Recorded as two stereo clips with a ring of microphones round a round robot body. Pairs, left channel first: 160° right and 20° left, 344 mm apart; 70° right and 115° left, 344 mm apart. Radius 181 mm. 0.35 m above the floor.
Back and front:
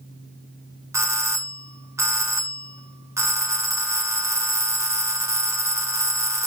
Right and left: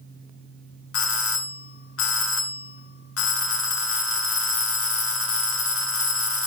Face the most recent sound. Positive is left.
turn(degrees=-55)